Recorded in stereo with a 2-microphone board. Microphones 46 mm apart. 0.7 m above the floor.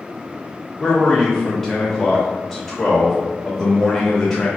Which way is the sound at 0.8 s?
5° left (ahead or behind).